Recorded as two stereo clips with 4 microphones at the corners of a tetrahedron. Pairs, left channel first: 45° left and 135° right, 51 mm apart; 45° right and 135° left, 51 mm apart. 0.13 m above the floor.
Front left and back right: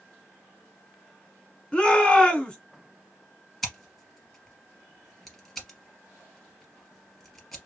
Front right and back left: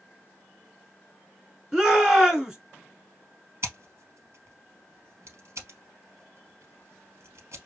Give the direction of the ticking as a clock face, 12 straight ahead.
No ticking in this recording.